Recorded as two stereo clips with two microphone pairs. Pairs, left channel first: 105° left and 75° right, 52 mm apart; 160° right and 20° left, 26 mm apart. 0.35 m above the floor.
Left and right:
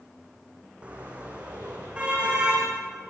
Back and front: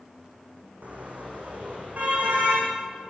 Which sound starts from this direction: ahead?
A car horn, at 0.8 s.